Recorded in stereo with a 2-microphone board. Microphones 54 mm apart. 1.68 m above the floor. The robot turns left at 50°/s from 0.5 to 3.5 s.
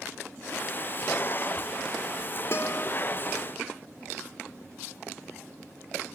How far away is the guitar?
About 1.7 m.